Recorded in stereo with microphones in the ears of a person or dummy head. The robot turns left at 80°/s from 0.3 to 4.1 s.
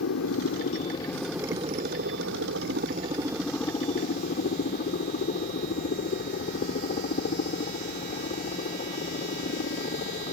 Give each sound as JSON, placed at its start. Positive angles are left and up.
{"t": 0.0, "sound": "a helicopter", "azimuth_deg": 75}